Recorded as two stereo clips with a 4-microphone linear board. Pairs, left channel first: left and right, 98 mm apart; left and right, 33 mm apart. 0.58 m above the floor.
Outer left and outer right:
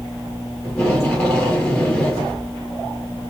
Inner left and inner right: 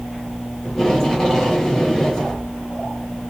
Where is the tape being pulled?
10° left (ahead or behind), 2 m.